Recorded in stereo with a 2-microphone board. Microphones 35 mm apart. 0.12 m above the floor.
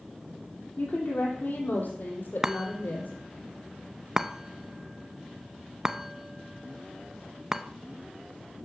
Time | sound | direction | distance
0.8 | a woman speaking | 55° left (ahead or behind) | 4.5 m
2.4 | a chime | 15° right (ahead or behind) | 0.5 m